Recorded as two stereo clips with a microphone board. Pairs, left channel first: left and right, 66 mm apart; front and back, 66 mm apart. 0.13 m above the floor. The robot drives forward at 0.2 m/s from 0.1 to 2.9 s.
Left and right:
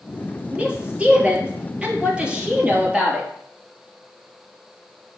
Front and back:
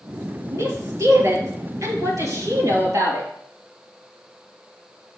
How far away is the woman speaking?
About 2.5 m.